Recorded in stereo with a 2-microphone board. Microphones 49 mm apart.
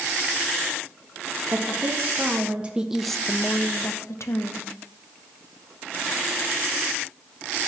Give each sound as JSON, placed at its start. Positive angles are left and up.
{"t": 1.5, "sound": "a woman speaking", "side_deg": -45, "distance_m": 1.6}